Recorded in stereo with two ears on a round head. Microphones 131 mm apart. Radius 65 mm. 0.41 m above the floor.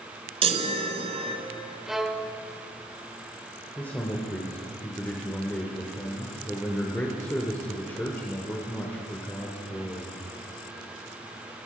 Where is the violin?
Centre (ahead or behind), 0.7 m.